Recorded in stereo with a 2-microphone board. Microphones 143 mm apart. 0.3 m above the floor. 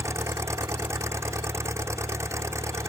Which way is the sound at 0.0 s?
20° right (ahead or behind).